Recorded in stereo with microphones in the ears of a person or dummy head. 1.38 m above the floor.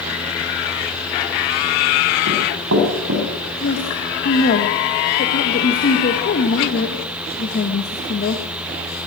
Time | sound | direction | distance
2.3 | running footsteps | 70° right (ahead or behind) | 7.5 m
3.6 | a woman speaking | 45° left (ahead or behind) | 1.7 m